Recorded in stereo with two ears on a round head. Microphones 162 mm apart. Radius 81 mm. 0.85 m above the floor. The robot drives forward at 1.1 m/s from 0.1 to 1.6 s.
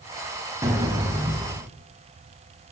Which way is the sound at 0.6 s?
20° right (ahead or behind).